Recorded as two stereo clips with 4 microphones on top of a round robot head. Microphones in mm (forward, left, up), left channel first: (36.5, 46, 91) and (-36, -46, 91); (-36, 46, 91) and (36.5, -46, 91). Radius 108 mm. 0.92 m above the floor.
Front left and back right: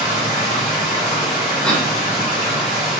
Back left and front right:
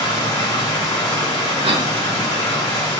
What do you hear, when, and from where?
0.0 s running water: 65° left, 1.7 m
1.6 s a cough: 30° right, 0.8 m